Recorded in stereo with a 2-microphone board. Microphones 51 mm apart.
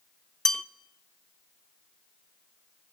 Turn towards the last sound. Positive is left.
turn(degrees=10)  # may be behind; listen again after turning